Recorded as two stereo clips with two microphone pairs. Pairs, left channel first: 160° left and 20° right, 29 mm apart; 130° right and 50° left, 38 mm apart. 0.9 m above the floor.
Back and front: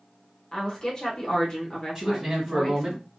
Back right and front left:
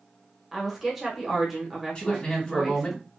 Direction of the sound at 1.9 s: 65° right.